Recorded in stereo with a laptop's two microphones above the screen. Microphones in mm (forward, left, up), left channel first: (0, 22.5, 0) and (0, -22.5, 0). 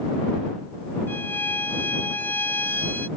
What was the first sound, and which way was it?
A violin, 45° left (ahead or behind).